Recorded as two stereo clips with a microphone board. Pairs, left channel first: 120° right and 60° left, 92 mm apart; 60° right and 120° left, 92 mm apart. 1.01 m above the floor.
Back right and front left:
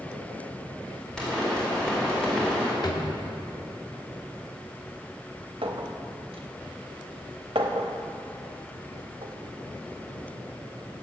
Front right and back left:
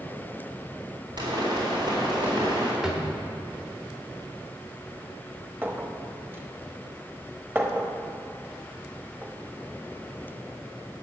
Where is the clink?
55° left, 0.9 m.